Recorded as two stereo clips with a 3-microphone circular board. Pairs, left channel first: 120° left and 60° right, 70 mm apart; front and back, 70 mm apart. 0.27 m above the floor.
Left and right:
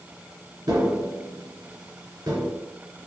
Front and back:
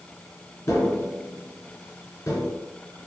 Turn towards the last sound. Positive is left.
turn(degrees=-45)